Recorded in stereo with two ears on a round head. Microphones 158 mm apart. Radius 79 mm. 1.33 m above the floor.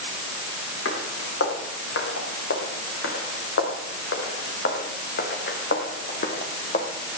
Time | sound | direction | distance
0.8 | footsteps | 80° left | 6.5 m